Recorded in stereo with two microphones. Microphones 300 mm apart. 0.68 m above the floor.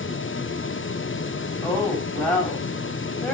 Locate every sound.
1.6 s a woman speaking: 5° left (ahead or behind), 5 m